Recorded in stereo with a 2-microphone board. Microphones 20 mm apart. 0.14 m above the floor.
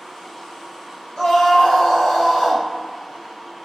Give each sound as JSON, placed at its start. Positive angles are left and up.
{"t": 1.2, "sound": "a scream", "side_deg": 55, "distance_m": 3.0}